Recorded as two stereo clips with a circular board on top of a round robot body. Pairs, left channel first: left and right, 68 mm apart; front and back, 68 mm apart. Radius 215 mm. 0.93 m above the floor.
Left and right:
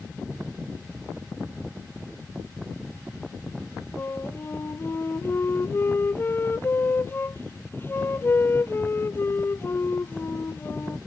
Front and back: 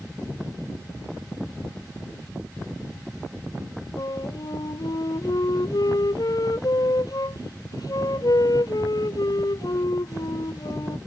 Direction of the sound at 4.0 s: 30° left.